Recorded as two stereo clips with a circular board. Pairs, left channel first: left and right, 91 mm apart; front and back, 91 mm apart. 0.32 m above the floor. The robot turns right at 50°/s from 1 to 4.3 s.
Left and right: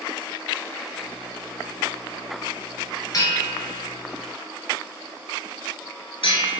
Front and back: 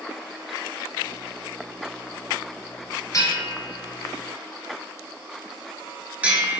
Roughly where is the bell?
Ahead left.